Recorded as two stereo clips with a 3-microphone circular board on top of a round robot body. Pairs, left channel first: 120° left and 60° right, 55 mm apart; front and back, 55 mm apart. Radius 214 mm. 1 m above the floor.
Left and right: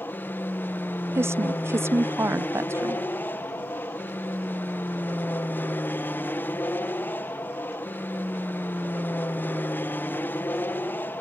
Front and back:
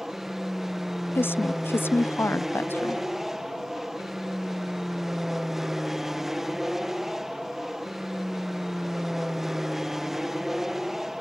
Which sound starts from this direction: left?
An aircraft, at 0.0 s.